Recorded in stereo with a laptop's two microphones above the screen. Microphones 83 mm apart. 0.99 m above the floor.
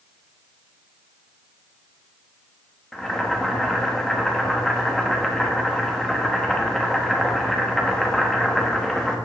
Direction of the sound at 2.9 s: 5° left (ahead or behind).